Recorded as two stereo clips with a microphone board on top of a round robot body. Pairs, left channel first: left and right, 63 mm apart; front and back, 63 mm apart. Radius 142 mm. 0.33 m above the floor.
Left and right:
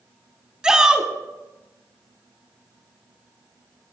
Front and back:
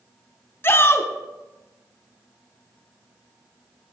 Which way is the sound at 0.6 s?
20° right.